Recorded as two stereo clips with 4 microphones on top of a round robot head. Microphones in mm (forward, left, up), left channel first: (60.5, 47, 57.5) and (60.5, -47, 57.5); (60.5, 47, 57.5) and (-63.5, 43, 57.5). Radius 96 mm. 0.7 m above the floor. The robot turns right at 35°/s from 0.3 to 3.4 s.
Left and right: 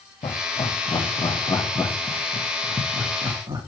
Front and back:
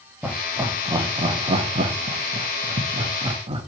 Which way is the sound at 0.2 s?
105° left.